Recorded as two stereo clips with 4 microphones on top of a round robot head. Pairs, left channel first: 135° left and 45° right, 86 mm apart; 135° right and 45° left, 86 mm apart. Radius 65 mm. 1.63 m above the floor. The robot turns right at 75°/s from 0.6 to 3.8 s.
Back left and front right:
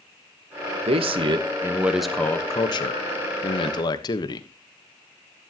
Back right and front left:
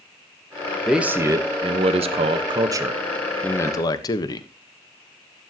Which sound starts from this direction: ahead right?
A man speaking, at 0.9 s.